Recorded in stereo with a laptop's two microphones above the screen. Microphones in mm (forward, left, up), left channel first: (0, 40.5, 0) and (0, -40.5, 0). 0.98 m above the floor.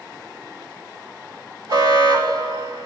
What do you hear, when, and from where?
1.7 s an alarm: 65° right (ahead or behind), 2.5 m